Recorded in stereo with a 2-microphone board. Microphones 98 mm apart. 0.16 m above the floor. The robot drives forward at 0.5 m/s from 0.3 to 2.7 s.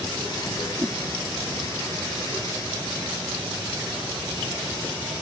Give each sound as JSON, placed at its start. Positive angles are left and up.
{"t": 0.8, "sound": "a whoosh", "side_deg": -25}